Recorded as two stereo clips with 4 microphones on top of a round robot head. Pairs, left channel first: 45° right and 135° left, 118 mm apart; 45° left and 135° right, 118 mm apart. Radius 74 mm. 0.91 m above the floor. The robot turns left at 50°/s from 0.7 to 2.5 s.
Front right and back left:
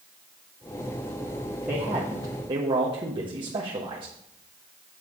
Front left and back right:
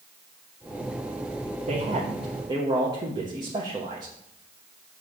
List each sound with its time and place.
1.7 s a man speaking: 140° right, 1.3 m; by 4.1 s 175° left, 1.3 m